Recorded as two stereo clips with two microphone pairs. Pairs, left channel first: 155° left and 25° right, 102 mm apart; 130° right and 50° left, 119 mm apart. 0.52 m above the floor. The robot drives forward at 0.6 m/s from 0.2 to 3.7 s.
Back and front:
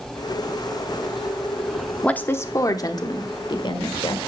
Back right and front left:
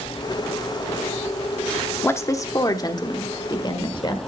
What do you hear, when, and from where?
2.0 s a woman speaking: 145° right, 0.6 m; by 4.3 s 175° right, 1.3 m